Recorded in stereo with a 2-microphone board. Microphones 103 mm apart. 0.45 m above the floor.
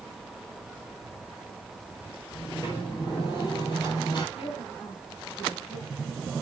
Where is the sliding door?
45° left (ahead or behind), 6.5 m.